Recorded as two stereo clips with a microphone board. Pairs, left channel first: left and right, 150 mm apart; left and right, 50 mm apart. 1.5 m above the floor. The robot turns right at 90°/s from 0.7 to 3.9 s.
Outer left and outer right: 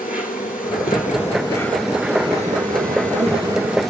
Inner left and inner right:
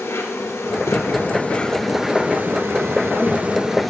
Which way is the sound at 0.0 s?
80° left.